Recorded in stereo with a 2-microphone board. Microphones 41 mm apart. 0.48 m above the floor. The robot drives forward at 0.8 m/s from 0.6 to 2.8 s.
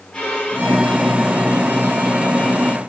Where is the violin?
20° left (ahead or behind), 4 m; by 2.8 s 35° left (ahead or behind), 2.5 m.